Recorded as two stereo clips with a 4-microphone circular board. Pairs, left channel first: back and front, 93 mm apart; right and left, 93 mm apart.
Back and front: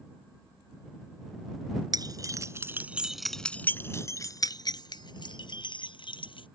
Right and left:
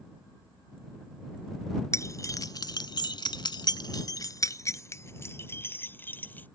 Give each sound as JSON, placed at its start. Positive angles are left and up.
{"t": 1.9, "sound": "keys jangling", "azimuth_deg": -35}